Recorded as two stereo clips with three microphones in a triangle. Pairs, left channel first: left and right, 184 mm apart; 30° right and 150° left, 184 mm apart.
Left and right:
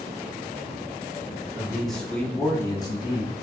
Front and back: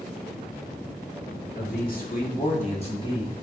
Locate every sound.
1.6 s a man speaking: 5° right, 2.5 m; by 3.3 s 35° left, 2 m